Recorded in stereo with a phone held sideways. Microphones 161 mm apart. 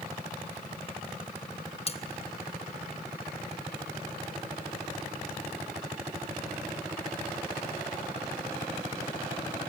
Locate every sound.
1.9 s cutlery clinking: 40° left (ahead or behind), 0.8 m